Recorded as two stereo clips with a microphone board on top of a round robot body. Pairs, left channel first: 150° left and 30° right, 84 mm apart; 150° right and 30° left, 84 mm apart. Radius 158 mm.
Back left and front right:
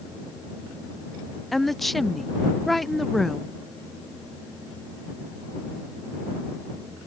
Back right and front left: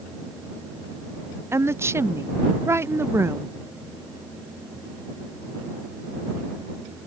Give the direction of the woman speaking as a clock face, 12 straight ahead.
10 o'clock.